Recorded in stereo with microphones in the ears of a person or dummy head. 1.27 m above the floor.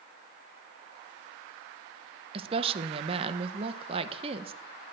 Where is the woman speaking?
35° right (ahead or behind), 1.1 m.